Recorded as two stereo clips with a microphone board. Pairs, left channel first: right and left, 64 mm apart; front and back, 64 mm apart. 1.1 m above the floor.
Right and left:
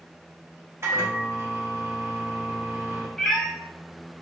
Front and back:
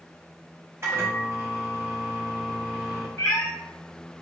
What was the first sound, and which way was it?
A microwave, 135° left.